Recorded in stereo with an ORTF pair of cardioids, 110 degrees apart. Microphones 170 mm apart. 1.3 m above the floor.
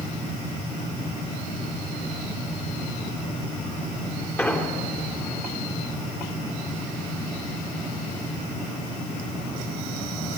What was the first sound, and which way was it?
An explosion, 10° left.